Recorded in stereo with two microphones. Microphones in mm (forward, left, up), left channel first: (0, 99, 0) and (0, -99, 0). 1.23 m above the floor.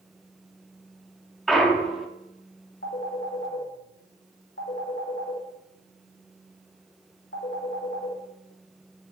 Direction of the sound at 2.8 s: 65° left (ahead or behind).